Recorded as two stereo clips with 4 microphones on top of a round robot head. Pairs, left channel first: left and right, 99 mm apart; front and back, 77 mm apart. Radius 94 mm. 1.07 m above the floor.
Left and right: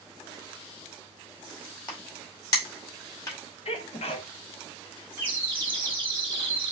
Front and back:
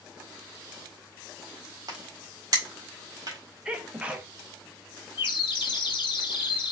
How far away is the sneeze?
About 1.1 m.